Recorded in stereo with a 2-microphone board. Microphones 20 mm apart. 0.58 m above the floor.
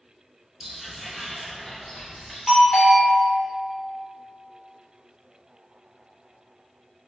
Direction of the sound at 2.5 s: 5° right (ahead or behind).